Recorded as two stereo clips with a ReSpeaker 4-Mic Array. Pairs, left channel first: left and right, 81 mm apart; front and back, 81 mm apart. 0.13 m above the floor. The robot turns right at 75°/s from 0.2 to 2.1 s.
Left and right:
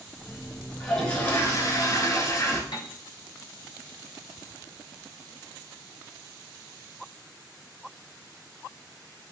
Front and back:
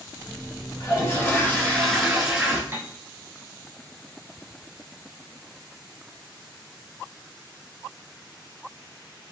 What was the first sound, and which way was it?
A toilet flushing, 5° left.